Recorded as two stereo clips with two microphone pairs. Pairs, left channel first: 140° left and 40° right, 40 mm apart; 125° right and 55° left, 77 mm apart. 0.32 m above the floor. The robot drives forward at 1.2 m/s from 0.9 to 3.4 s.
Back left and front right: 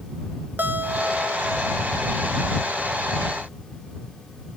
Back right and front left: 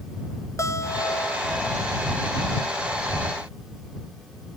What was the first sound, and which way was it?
A guitar, 80° right.